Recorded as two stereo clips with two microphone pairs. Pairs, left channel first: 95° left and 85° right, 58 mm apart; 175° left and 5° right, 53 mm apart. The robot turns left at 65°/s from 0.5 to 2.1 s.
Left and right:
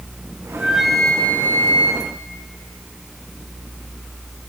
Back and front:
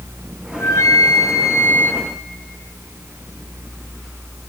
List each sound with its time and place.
0.5 s a flute: 150° right, 2.5 m; by 2.0 s 110° left, 2.5 m